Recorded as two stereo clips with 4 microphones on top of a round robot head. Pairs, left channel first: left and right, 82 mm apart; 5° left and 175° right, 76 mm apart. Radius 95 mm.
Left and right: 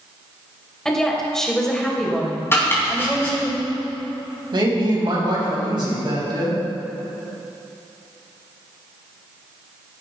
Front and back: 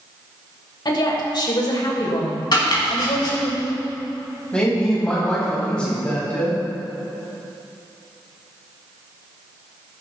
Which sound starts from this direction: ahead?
A woman speaking, at 0.8 s.